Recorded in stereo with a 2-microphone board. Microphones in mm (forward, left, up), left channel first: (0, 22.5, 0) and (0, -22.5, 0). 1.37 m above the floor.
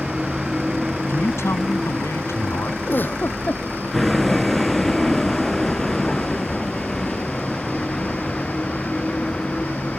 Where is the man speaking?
85° left.